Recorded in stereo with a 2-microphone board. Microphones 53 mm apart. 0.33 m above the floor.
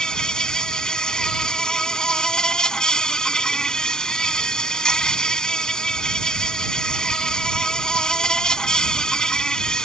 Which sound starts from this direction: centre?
An insect, at 0.0 s.